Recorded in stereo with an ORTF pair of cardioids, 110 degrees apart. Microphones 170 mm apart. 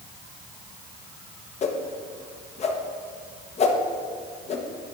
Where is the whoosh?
40° left, 0.9 m.